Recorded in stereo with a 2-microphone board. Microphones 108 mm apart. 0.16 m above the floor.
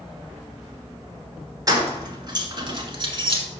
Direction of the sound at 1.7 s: 30° right (ahead or behind).